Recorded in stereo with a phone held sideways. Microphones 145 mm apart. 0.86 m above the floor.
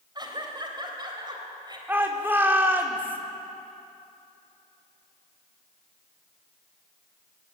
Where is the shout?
15° right (ahead or behind), 2.5 m.